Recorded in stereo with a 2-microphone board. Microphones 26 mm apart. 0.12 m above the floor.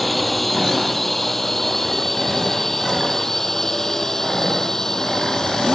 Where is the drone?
5° left (ahead or behind); by 5.8 s 20° left (ahead or behind).